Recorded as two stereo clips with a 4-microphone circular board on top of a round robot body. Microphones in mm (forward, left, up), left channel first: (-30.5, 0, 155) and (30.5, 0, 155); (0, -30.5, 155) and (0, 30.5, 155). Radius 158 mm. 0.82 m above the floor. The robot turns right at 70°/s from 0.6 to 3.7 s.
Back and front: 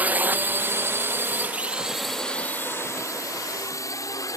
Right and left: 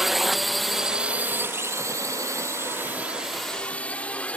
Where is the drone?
10° left; by 4.4 s 160° right.